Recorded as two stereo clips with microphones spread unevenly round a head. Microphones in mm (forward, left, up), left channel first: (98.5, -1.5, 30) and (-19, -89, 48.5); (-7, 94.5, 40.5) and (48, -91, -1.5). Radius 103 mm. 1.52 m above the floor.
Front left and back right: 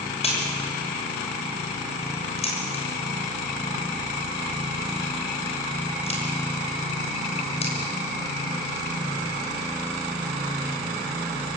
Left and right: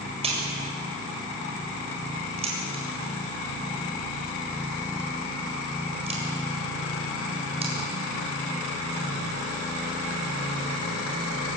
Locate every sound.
0.2 s a crack: 10° right, 7 m